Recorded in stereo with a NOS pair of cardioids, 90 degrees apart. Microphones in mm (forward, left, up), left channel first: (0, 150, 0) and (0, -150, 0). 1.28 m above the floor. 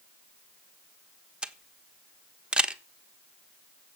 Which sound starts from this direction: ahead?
A camera shutter, at 1.4 s.